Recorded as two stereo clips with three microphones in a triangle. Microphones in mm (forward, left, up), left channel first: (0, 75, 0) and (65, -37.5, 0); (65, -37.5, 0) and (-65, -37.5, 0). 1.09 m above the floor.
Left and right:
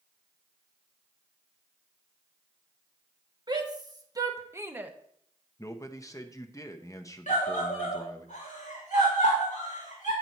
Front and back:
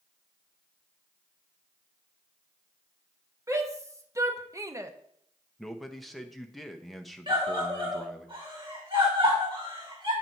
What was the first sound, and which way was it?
A shout, 115° right.